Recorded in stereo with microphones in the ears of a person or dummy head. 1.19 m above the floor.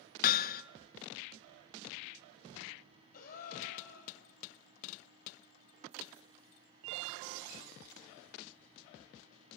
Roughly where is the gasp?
Left.